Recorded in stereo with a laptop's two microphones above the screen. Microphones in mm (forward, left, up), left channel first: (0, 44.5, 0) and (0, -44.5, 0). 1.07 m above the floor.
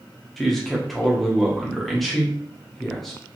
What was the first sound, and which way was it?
A man speaking, 5° left (ahead or behind).